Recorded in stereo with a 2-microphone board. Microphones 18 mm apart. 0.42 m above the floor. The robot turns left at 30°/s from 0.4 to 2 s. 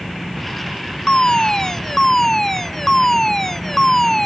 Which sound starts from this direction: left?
A fire alarm, at 1.1 s.